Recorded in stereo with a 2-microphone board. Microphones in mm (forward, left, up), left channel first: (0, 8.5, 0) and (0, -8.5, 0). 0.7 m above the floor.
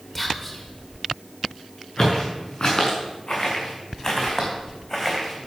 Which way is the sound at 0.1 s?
10° left (ahead or behind).